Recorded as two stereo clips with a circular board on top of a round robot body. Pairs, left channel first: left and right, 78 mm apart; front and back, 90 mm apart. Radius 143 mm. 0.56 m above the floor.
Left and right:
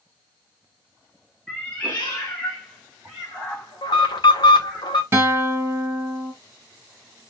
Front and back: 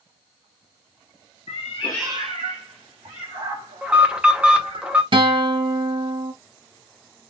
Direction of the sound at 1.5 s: 10° left.